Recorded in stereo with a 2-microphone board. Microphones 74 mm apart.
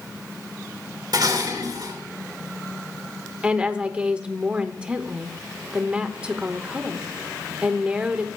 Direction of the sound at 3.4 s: 15° right (ahead or behind).